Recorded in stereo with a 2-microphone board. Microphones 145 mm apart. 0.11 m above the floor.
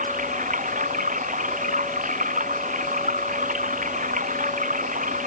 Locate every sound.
0.0 s running water: 65° right (ahead or behind)